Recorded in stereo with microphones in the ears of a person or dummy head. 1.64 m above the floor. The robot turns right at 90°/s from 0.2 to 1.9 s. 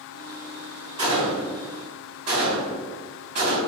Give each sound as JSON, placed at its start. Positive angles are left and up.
{"t": 1.0, "sound": "a gunshot", "side_deg": -30, "distance_m": 1.9}